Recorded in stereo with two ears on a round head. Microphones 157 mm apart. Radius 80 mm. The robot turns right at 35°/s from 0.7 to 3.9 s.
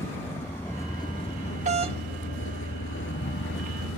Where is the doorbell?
40° right (ahead or behind); by 2.0 s 30° right (ahead or behind).